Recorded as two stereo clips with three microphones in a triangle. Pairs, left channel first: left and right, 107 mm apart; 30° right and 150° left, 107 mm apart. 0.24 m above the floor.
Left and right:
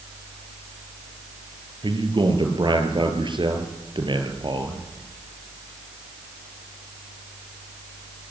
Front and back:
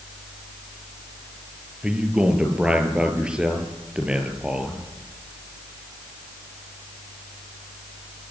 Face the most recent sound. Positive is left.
turn(degrees=-130)